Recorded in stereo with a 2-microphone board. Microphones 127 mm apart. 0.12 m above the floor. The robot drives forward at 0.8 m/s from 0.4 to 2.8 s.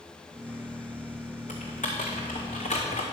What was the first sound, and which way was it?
Typing on a keyboard, 80° left.